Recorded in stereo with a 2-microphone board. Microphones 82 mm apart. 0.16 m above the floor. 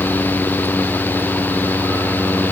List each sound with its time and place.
Only background noise.